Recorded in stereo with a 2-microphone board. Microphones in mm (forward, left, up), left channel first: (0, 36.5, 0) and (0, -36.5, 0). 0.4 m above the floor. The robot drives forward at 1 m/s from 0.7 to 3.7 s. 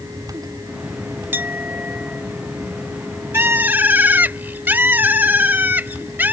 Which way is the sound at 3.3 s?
30° right (ahead or behind).